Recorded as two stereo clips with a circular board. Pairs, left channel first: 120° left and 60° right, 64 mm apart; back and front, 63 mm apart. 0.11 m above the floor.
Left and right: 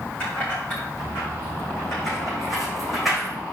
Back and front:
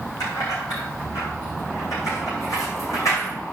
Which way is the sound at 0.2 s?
170° right.